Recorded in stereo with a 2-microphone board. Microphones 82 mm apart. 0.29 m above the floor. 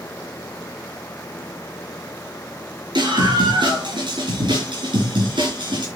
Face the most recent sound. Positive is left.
turn(degrees=-75)  # may be behind; listen again after turning